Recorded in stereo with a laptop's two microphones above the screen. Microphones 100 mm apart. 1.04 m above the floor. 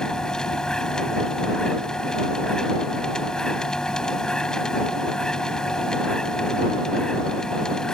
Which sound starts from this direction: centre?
A machine running, at 0.0 s.